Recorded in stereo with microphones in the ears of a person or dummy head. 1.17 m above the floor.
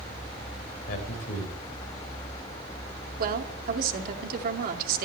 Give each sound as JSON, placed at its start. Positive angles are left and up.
{"t": 0.9, "sound": "a man speaking", "side_deg": 55, "distance_m": 5.0}
{"t": 3.2, "sound": "a woman speaking", "side_deg": -55, "distance_m": 2.5}